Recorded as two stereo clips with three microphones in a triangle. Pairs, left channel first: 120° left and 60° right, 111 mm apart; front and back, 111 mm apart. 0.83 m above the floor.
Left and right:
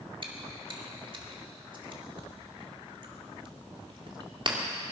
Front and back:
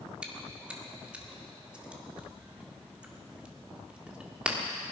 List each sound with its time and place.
0.2 s chewing: 100° right, 1.9 m